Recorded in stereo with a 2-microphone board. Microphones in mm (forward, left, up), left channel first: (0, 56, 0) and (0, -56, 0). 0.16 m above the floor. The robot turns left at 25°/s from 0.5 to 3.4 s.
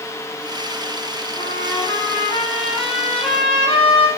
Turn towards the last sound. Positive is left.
turn(degrees=50)